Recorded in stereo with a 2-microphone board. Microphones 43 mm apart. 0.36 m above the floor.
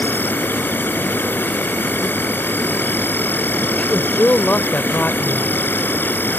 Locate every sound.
0.0 s an insect: 45° left (ahead or behind)
3.8 s a woman speaking: 35° left (ahead or behind)